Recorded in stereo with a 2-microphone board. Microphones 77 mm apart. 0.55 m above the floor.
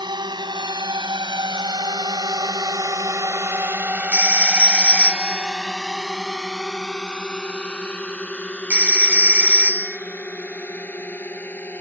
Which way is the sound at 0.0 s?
70° right (ahead or behind).